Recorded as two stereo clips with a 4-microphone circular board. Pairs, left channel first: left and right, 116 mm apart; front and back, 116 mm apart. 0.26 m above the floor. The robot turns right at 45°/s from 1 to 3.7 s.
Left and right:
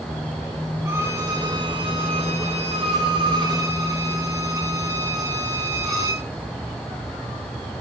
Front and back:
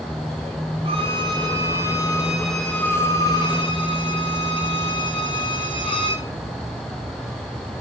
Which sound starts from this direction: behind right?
A violin, at 0.8 s.